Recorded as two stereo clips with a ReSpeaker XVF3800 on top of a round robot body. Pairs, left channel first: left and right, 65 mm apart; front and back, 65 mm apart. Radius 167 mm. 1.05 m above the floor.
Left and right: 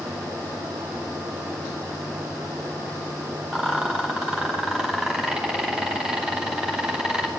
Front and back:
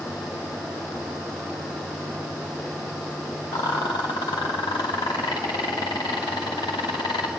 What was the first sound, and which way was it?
A rattle, 10° right.